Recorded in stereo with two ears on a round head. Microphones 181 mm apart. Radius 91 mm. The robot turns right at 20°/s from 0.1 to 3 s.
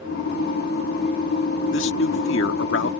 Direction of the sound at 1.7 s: 70° left (ahead or behind).